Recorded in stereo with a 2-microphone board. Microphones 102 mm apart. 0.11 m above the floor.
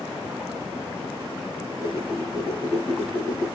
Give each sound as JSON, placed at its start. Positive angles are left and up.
{"t": 1.6, "sound": "a whoosh", "side_deg": -25, "distance_m": 1.8}